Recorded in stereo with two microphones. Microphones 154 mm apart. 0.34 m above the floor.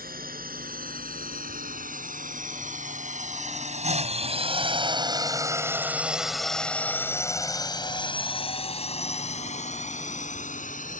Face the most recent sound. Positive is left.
turn(degrees=55)  # may be behind; listen again after turning